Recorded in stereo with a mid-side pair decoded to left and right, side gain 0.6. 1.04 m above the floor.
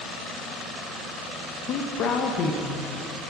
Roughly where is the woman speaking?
Ahead left.